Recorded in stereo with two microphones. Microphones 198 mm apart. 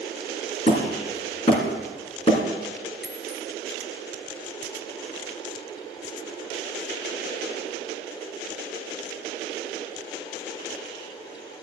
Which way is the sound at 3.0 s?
70° left (ahead or behind).